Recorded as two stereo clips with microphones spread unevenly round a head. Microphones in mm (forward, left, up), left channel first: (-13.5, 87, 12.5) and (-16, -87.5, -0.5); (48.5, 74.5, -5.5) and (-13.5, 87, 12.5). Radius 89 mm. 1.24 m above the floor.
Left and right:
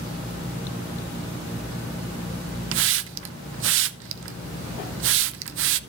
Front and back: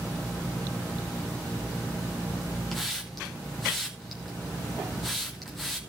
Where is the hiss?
95° right, 0.6 m.